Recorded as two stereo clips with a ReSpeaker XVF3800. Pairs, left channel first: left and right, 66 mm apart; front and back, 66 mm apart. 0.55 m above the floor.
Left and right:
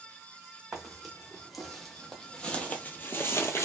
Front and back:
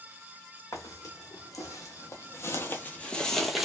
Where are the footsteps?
5° right, 1.5 m; by 3.6 s 95° left, 0.7 m.